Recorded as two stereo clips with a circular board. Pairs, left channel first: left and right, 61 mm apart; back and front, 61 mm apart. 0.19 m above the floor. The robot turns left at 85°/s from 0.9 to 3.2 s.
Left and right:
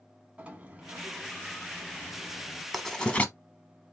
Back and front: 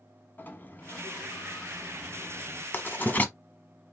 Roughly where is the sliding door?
Behind right.